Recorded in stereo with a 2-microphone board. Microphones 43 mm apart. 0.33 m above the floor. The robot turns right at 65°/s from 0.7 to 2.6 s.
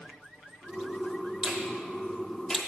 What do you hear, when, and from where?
1.4 s a finger snap: 15° right (ahead or behind), 1.1 m; by 2.6 s 15° left (ahead or behind), 1.1 m